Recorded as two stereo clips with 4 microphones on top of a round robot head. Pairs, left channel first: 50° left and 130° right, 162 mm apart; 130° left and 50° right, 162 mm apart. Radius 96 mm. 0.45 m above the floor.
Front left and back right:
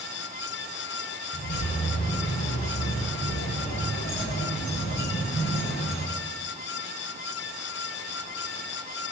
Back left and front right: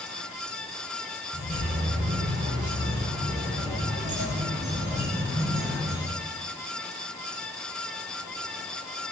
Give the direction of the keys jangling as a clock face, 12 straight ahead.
12 o'clock.